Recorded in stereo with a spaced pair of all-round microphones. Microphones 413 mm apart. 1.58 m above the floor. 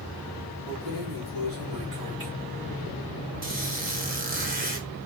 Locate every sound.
0.7 s keys jangling: 70° right (ahead or behind), 1.8 m; by 2.3 s 65° right (ahead or behind), 2 m
3.4 s a squeak: 20° right (ahead or behind), 1.3 m